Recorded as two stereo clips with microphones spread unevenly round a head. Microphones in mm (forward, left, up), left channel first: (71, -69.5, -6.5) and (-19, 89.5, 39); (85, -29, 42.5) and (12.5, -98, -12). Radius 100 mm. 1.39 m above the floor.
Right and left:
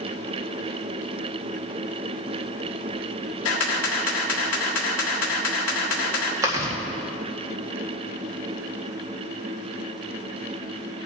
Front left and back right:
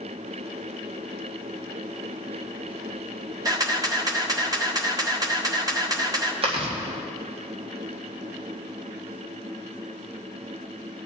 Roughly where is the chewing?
Behind.